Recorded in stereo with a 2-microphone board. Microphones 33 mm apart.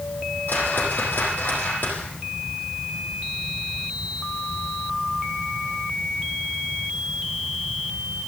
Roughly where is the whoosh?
Left.